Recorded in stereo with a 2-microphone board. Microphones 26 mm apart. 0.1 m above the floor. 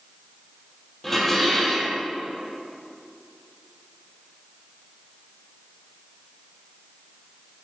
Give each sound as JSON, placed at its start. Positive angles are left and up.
{"t": 1.0, "sound": "dishes clattering", "side_deg": 10, "distance_m": 2.0}